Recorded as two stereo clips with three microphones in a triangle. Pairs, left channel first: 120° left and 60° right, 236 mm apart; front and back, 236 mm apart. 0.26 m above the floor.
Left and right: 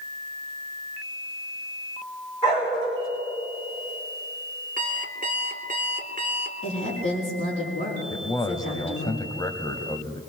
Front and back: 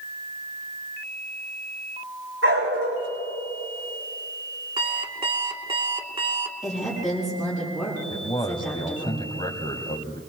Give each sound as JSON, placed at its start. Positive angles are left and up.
{"t": 2.4, "sound": "a dog barking", "azimuth_deg": -175, "distance_m": 5.5}
{"t": 4.8, "sound": "an alarm clock", "azimuth_deg": -110, "distance_m": 1.3}
{"t": 6.6, "sound": "a woman speaking", "azimuth_deg": 90, "distance_m": 6.5}
{"t": 8.1, "sound": "a man speaking", "azimuth_deg": 55, "distance_m": 1.1}